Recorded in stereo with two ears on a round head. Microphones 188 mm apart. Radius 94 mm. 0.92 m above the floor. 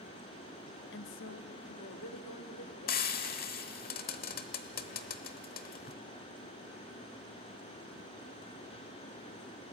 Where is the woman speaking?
60° left (ahead or behind), 0.8 m; by 3.3 s 80° left, 3.5 m.